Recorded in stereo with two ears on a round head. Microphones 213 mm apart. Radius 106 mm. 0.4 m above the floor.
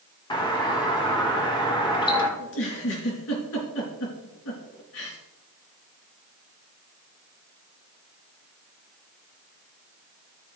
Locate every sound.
0.3 s a doorbell: 20° left (ahead or behind), 1.7 m
2.4 s a giggle: 65° left (ahead or behind), 4 m